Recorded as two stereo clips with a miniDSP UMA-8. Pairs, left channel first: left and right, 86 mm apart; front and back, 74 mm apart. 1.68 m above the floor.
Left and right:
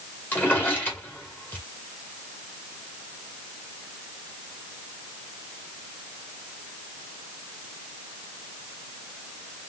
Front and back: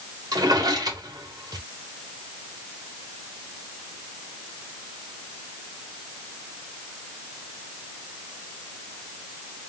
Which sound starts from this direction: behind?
A drawer, at 0.3 s.